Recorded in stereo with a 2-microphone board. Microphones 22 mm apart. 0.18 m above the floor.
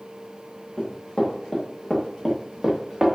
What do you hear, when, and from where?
0.8 s running footsteps: 25° left (ahead or behind), 1.8 m; by 3.1 s 20° right (ahead or behind), 1.2 m